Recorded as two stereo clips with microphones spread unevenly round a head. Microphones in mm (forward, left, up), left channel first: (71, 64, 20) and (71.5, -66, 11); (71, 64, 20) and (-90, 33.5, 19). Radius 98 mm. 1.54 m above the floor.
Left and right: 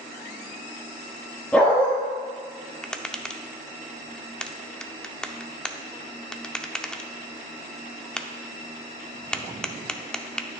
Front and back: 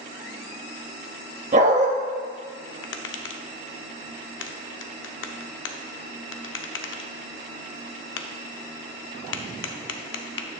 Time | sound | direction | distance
1.5 | a dog barking | 165° left | 1.2 m
2.8 | tapping | 5° left | 0.7 m